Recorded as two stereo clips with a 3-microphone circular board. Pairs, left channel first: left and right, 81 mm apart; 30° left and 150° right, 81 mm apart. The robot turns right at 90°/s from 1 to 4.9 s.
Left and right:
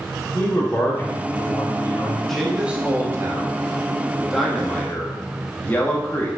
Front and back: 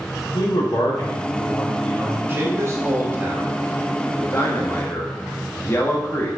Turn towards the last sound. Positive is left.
turn(degrees=45)